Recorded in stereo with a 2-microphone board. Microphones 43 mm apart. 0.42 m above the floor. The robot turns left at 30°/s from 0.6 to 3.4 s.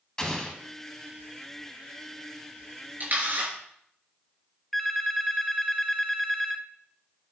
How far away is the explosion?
About 1.7 m.